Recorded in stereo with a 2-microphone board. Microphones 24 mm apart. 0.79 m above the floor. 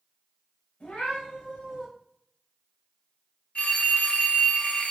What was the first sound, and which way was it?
A cat meowing, 80° left.